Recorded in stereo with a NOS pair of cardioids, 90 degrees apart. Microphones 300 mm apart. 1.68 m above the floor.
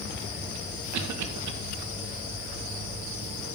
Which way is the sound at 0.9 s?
65° right.